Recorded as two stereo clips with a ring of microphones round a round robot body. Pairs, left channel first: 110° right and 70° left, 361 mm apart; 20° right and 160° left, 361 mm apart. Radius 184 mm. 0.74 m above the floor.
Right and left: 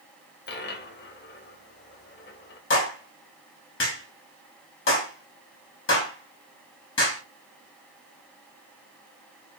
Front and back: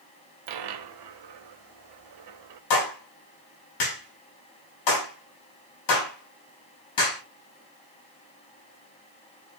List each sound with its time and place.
0.5 s a dropped coin: 175° right, 1.5 m
2.7 s a clap: 55° right, 6 m